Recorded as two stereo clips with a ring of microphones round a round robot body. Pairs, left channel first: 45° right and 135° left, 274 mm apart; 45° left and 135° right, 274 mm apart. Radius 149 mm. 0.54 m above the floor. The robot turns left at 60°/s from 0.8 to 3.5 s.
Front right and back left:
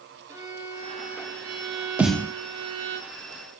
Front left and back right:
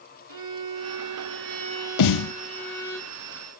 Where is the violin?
145° right, 7 m; by 3.0 s 85° left, 7 m.